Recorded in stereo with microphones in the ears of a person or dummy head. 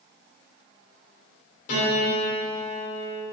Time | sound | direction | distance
1.7 | a piano | 50° left (ahead or behind) | 2.5 m